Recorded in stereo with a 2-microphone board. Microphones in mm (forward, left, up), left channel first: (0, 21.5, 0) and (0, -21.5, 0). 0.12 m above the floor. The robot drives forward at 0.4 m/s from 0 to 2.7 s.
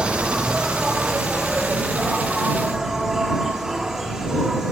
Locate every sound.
0.0 s an insect: 25° right (ahead or behind), 0.9 m; by 4.7 s 10° right (ahead or behind), 1.9 m